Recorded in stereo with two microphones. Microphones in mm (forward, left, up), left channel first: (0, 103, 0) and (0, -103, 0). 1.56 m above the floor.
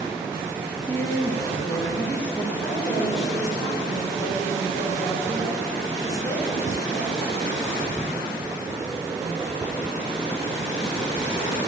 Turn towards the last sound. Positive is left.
turn(degrees=0)  # may be behind; listen again after turning